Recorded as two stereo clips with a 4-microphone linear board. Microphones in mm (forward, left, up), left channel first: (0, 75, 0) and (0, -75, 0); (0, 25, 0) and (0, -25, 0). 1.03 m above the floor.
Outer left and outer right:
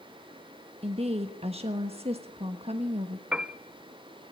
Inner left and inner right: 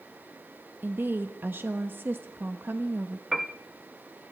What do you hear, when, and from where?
0.8 s a woman speaking: 40° right (ahead or behind), 1.1 m
3.3 s a piano: 5° right (ahead or behind), 0.9 m